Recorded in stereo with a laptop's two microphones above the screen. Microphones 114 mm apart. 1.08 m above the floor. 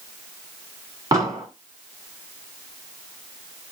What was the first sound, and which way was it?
An explosion, 30° right (ahead or behind).